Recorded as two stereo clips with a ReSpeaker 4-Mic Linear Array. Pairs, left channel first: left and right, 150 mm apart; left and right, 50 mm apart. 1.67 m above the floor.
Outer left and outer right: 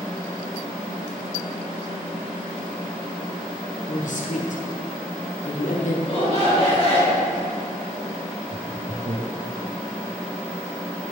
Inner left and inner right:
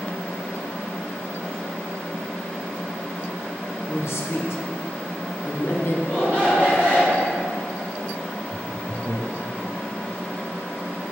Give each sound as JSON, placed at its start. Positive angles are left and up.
{"t": 3.9, "sound": "a man speaking", "side_deg": 60, "distance_m": 1.1}
{"t": 6.0, "sound": "a shout", "side_deg": -50, "distance_m": 2.0}
{"t": 8.5, "sound": "laughter", "side_deg": -80, "distance_m": 1.0}